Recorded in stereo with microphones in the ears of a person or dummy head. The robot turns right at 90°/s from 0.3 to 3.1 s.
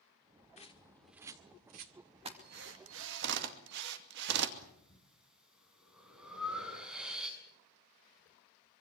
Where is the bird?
35° left (ahead or behind), 1.5 m; by 1.9 s 55° right (ahead or behind), 1.5 m.